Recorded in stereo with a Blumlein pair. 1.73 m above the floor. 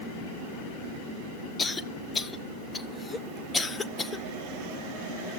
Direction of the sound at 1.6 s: 15° left.